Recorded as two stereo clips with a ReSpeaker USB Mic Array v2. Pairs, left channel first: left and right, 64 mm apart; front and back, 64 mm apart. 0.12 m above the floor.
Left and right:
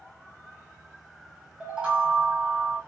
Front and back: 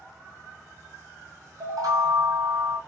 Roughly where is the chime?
Behind.